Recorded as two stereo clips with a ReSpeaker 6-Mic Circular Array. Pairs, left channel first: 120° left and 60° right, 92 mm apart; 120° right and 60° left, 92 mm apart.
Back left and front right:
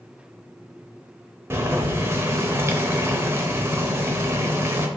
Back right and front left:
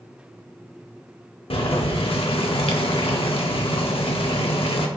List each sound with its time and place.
1.5 s boiling: 125° right, 0.5 m